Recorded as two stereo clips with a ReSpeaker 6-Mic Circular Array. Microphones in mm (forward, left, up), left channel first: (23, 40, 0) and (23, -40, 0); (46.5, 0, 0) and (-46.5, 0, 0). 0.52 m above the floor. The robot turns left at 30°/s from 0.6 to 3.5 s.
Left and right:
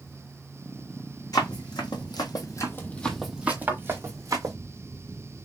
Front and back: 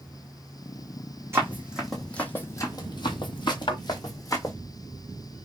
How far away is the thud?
About 0.9 m.